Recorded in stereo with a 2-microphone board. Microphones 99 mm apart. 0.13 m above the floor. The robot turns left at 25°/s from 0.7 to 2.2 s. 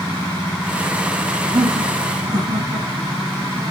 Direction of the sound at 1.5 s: 55° right (ahead or behind).